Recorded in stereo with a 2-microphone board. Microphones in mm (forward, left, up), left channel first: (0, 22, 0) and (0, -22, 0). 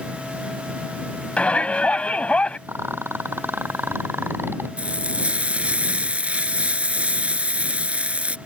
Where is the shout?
30° left (ahead or behind).